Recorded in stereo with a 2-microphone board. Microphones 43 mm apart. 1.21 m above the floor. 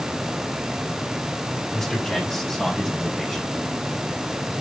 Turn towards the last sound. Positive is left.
turn(degrees=0)  # may be behind; listen again after turning